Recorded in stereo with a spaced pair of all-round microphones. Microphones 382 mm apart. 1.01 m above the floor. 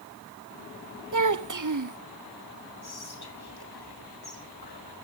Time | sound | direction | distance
1.1 | a child speaking | 50° right (ahead or behind) | 0.7 m
2.8 | whispering | 75° left (ahead or behind) | 1.1 m